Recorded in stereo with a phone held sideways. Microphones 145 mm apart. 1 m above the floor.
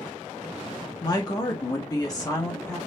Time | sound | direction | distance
1.0 | a woman speaking | 30° left (ahead or behind) | 0.8 m